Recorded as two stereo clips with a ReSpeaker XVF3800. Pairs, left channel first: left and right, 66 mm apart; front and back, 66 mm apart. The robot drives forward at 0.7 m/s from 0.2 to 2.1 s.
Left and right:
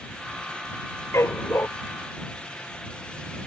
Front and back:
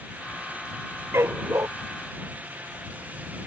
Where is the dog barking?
135° left; by 1.7 s 140° left.